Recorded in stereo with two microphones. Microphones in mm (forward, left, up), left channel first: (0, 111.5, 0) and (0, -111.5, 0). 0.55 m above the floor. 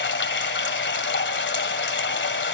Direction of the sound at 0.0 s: 55° left (ahead or behind).